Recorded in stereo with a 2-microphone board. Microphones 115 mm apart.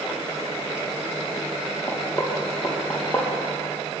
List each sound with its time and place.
1.9 s knocking: 10° left (ahead or behind), 4 m